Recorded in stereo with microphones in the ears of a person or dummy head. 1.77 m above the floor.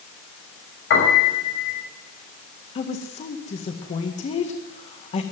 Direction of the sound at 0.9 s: 75° left (ahead or behind).